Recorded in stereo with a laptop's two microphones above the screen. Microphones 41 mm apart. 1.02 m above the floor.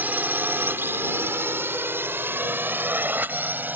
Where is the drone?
50° right (ahead or behind); by 3.8 s 55° right (ahead or behind).